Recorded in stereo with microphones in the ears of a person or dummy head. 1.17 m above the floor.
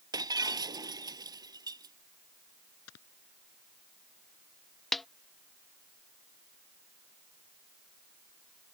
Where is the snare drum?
5° left (ahead or behind).